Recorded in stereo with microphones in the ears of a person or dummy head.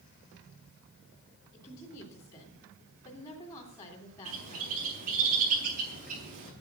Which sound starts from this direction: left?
A woman speaking, at 1.5 s.